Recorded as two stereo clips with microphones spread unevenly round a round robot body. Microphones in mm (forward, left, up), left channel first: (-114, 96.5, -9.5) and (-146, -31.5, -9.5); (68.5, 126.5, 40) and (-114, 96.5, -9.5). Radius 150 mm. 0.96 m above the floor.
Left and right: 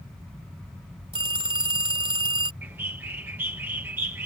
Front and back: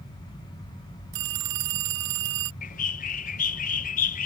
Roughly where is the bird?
Ahead right.